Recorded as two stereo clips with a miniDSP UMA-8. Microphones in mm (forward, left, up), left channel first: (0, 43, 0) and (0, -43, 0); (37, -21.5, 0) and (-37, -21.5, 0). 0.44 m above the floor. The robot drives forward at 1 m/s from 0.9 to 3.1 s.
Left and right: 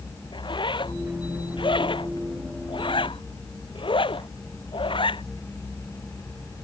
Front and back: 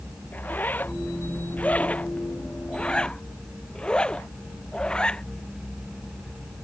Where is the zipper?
65° left; by 5.2 s 80° left.